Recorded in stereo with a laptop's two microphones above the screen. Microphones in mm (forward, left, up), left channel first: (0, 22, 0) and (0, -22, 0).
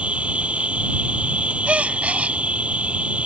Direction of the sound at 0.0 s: 30° right (ahead or behind).